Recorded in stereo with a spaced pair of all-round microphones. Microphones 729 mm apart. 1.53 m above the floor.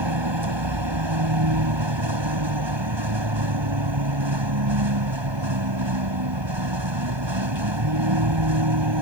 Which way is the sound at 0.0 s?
35° right (ahead or behind).